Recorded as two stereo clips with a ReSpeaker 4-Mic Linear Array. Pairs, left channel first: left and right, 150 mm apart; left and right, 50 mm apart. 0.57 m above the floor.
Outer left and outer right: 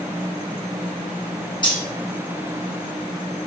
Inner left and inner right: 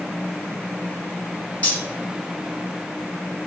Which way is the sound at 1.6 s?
30° left (ahead or behind).